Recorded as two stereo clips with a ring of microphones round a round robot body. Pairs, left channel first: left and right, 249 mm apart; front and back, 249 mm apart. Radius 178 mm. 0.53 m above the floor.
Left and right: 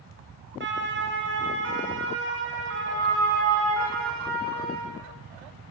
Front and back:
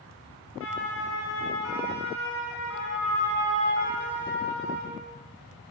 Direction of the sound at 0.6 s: 50° right.